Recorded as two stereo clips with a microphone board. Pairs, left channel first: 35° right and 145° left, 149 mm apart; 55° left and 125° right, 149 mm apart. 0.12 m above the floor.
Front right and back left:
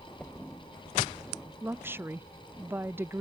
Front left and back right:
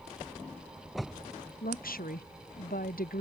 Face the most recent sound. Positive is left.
turn(degrees=70)